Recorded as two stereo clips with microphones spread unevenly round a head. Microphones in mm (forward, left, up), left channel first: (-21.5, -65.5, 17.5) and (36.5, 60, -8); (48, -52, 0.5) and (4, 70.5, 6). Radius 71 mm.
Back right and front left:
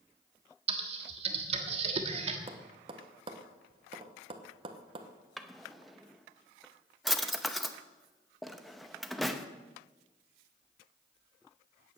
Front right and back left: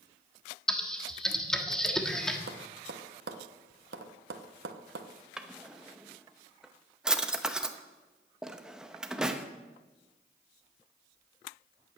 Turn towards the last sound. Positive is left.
turn(degrees=-175)